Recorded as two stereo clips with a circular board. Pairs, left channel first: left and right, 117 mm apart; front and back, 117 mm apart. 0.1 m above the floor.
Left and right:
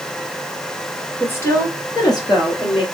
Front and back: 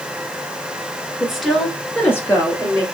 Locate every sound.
1.2 s a woman speaking: 110° left, 1.6 m; by 2.9 s 55° left, 2.5 m